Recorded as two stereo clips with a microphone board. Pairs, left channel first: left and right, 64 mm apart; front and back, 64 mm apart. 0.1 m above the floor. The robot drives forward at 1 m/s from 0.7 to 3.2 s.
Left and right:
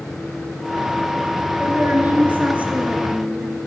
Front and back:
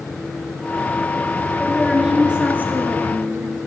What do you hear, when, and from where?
1.6 s a woman speaking: 75° right, 1.7 m; by 3.6 s 155° right, 2 m